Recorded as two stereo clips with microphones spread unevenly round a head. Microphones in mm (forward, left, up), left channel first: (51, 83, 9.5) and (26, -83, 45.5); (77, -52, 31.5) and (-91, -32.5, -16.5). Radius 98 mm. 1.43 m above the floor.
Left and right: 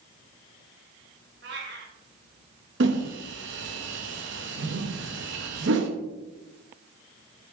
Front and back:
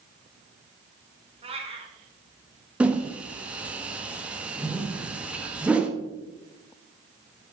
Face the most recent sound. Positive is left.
turn(degrees=-100)